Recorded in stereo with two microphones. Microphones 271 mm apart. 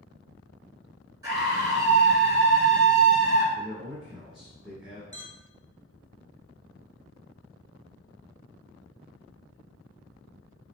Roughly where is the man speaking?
Centre.